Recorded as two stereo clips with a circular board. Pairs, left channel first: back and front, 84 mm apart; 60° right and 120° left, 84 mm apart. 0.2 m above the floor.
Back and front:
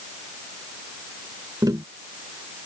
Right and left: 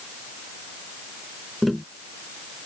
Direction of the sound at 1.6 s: 30° left.